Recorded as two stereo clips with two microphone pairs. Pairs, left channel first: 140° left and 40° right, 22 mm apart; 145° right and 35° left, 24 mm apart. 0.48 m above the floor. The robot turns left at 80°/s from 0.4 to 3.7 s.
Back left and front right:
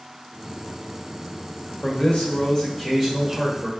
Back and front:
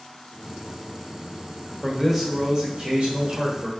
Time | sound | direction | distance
1.8 | a man speaking | 150° left | 1.6 m